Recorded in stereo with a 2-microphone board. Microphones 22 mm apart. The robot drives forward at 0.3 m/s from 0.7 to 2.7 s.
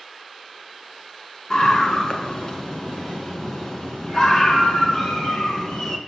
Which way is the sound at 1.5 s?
35° left (ahead or behind).